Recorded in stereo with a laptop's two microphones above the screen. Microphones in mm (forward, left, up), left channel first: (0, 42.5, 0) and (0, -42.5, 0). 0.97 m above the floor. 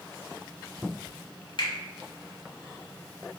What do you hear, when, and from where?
1.6 s a finger snap: 70° left (ahead or behind), 0.8 m